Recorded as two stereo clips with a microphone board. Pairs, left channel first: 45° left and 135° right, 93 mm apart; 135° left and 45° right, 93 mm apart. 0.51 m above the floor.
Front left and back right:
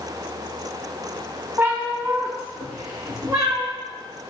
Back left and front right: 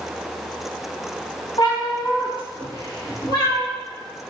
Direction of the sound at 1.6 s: 160° left.